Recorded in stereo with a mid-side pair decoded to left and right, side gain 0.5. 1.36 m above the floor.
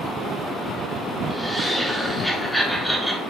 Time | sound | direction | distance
1.3 | laughter | straight ahead | 4.5 m